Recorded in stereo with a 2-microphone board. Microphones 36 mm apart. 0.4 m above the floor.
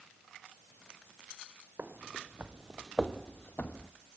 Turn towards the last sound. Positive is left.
turn(degrees=55)  # may be behind; listen again after turning